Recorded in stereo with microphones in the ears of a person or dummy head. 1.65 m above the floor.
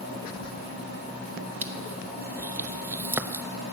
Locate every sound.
0.0 s a machine running: 60° right (ahead or behind), 3.5 m
1.6 s crushing: 10° right (ahead or behind), 0.8 m